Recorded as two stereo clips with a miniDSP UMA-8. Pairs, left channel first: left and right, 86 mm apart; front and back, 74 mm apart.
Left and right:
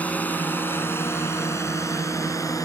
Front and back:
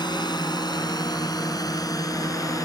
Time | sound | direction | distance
0.0 | a drone | 20° left | ?